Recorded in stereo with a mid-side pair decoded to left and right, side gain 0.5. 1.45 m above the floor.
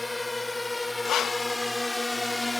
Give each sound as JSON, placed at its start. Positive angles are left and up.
{"t": 0.0, "sound": "a drone", "azimuth_deg": 15}
{"t": 1.1, "sound": "breathing", "azimuth_deg": 65}